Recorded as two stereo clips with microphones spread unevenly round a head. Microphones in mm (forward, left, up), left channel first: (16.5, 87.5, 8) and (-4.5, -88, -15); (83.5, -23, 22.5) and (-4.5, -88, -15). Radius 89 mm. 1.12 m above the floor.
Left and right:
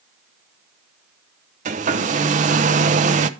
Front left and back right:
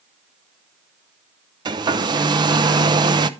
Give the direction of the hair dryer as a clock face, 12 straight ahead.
4 o'clock.